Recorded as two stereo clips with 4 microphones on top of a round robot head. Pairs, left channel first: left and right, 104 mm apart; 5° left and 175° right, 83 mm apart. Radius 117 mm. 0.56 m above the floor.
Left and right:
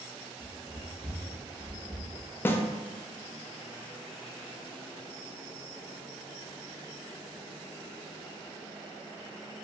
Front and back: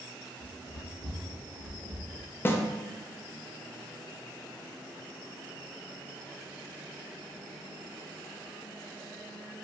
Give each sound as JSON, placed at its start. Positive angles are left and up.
{"t": 0.4, "sound": "running footsteps", "azimuth_deg": -15, "distance_m": 1.6}
{"t": 2.5, "sound": "a snare drum", "azimuth_deg": 40, "distance_m": 0.5}